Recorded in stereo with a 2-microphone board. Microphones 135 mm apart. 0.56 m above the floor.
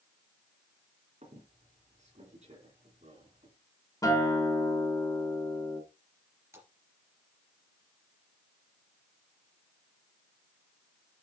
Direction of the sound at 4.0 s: 25° left (ahead or behind).